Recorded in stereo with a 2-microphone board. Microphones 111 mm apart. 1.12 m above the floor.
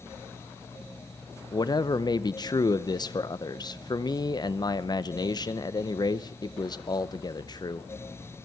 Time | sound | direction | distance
1.5 | a man speaking | 40° left (ahead or behind) | 0.7 m